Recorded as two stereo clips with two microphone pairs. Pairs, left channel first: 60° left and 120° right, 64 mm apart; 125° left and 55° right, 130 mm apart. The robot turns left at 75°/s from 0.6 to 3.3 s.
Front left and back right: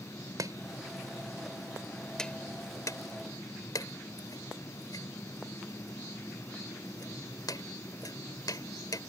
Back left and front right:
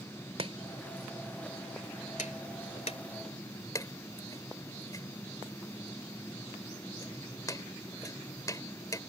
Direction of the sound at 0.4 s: 95° right.